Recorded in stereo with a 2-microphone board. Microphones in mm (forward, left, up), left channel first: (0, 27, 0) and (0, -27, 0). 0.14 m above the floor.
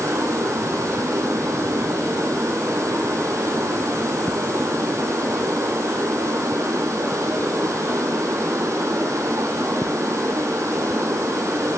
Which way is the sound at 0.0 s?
65° right (ahead or behind).